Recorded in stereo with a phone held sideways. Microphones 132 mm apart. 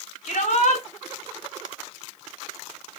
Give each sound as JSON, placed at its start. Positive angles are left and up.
{"t": 0.2, "sound": "a shout", "side_deg": 65, "distance_m": 5.0}